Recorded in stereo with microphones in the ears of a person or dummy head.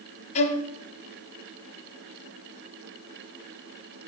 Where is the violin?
35° left (ahead or behind), 0.6 m.